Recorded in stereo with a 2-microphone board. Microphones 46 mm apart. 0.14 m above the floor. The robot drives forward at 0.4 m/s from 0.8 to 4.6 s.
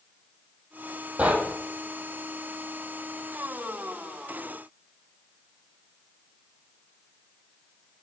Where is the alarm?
No alarm in this recording.